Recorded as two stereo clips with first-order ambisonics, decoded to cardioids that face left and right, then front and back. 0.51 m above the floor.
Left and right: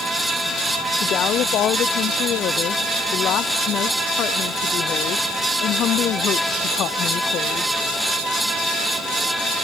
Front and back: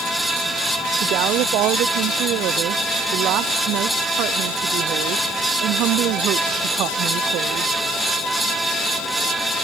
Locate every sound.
1.0 s a woman speaking: 140° left